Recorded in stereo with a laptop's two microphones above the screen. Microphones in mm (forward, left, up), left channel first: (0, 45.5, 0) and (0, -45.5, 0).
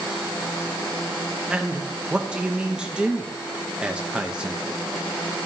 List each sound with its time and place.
1.5 s a man speaking: 10° right (ahead or behind), 0.5 m